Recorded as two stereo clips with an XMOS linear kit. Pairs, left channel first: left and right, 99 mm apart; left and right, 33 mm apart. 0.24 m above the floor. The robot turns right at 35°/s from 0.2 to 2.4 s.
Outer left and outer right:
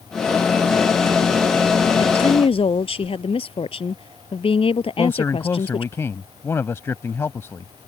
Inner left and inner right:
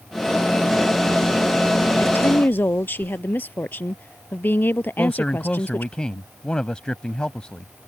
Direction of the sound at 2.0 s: 70° left (ahead or behind).